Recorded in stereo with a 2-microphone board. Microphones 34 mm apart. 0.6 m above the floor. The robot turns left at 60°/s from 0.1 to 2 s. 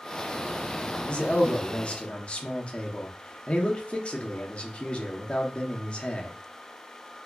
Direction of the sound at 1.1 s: 130° left.